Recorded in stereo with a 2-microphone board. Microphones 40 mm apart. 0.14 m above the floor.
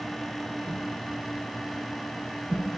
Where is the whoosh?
50° right (ahead or behind), 0.9 m.